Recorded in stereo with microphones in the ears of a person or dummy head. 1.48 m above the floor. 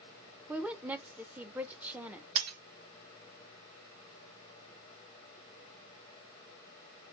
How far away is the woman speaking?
About 0.9 m.